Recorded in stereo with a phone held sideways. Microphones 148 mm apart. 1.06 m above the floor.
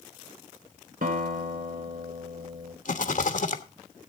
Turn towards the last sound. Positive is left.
turn(degrees=65)  # may be behind; listen again after turning